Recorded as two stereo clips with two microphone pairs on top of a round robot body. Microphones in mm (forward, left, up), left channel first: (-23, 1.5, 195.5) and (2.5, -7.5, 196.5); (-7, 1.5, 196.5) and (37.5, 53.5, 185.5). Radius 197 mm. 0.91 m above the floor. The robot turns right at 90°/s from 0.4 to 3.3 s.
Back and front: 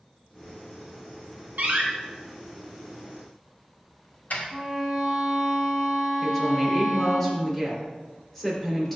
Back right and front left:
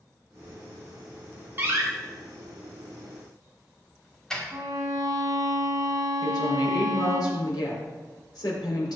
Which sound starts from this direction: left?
A violin, at 4.5 s.